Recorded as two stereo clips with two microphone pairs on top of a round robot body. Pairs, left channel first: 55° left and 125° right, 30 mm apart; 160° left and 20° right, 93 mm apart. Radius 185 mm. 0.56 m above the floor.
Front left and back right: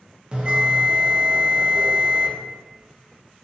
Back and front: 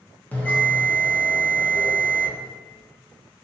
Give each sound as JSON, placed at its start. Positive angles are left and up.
{"t": 0.3, "sound": "a bell", "azimuth_deg": -140, "distance_m": 1.0}